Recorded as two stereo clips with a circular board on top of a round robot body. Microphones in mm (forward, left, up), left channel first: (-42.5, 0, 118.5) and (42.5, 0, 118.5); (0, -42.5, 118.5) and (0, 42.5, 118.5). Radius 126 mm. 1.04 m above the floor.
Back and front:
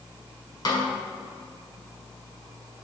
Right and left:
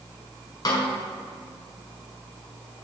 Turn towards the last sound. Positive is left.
turn(degrees=-135)